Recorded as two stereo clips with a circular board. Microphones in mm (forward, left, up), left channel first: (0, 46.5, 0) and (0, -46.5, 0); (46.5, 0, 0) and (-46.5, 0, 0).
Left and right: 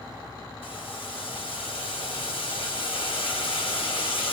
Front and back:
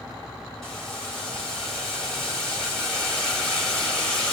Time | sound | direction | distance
0.6 | boiling | 85° left | 2.5 m